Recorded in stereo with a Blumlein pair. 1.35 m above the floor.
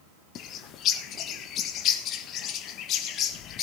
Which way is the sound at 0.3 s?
35° left.